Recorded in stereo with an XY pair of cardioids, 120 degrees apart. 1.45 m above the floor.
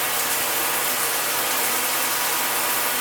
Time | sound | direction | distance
0.0 | running water | 5° right | 0.8 m